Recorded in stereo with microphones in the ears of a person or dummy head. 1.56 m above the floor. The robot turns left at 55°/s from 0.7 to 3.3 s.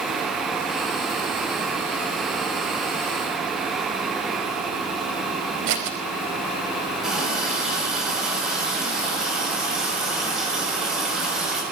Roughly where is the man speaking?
I don't hear a man speaking.